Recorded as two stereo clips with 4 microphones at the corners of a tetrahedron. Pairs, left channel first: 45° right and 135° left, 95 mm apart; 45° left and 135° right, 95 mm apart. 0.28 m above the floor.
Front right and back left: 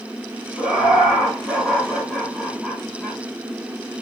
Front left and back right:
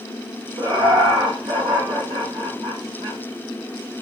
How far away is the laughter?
About 1.7 m.